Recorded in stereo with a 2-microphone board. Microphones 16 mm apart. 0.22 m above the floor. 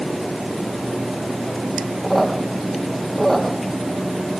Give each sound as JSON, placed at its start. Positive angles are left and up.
{"t": 2.0, "sound": "a squeak", "side_deg": 15, "distance_m": 3.0}